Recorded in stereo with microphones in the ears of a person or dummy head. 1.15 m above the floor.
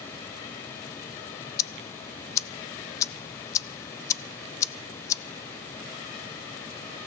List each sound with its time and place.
1.6 s ticking: 20° left (ahead or behind), 0.6 m